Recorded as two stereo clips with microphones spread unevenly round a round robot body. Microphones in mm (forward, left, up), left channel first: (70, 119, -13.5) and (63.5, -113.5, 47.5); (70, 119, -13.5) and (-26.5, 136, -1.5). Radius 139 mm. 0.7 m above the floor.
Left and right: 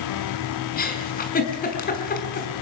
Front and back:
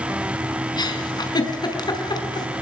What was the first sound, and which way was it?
A giggle, 35° left.